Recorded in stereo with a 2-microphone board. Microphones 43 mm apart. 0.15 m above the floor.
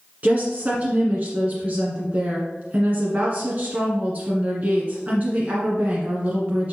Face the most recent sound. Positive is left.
turn(degrees=-35)  # may be behind; listen again after turning